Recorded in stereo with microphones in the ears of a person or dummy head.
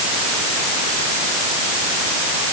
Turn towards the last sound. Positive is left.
No sound to turn to.